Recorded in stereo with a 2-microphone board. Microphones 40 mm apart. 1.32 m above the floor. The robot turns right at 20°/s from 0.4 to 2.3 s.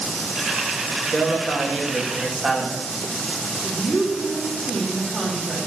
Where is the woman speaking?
5° right (ahead or behind), 2.5 m.